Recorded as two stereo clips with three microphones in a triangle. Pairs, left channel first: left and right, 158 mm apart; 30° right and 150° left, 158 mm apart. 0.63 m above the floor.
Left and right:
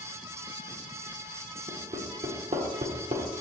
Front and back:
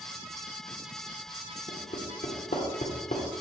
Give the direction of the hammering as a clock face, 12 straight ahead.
2 o'clock.